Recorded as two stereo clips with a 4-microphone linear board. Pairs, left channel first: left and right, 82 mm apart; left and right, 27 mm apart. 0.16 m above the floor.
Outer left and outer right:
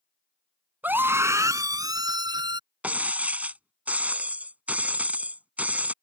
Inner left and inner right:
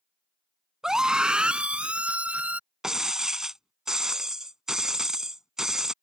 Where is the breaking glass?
20° right (ahead or behind).